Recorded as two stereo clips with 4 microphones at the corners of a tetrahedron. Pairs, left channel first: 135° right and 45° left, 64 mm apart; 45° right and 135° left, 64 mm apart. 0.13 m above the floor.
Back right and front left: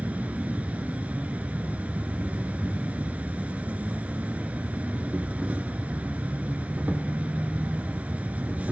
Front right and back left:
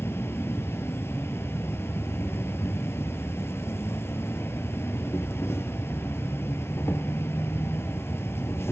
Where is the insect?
15° right, 0.7 m.